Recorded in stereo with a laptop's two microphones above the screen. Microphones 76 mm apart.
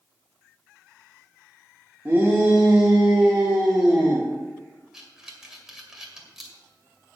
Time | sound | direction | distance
2.0 | a shout | 25° right (ahead or behind) | 1.8 m
4.9 | breathing | 5° right (ahead or behind) | 2 m